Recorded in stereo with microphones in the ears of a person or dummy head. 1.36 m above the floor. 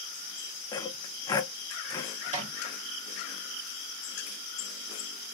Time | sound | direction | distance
0.7 | sawing | 25° left (ahead or behind) | 0.6 m
2.2 | a microwave | 30° right (ahead or behind) | 1.0 m